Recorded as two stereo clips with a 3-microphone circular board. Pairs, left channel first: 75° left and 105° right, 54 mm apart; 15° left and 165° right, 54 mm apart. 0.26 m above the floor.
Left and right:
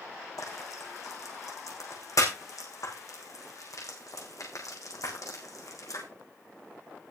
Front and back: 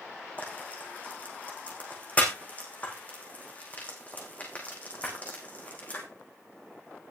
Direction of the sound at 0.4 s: 80° left.